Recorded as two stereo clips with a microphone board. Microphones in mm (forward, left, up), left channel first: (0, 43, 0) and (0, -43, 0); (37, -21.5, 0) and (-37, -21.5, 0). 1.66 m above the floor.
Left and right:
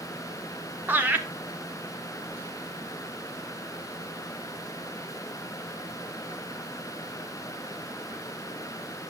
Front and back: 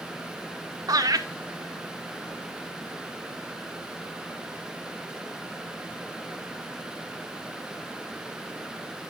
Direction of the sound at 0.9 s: 155° right.